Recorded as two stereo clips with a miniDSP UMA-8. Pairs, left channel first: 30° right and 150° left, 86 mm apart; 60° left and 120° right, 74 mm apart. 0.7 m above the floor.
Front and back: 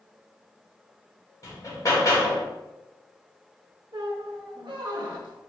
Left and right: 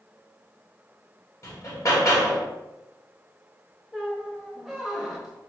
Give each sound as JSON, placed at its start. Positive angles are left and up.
{"t": 1.4, "sound": "hammering", "azimuth_deg": 20, "distance_m": 1.2}
{"t": 3.9, "sound": "a squeak", "azimuth_deg": 155, "distance_m": 0.8}